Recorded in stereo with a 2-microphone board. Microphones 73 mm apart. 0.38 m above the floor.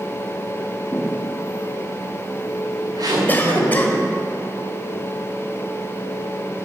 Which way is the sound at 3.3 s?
25° left (ahead or behind).